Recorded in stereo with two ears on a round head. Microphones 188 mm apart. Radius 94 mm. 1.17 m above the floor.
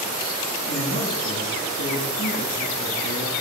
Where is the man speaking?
65° left (ahead or behind), 2 m.